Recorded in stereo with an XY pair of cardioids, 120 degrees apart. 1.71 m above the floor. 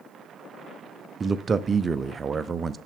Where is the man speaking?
30° right, 0.5 m.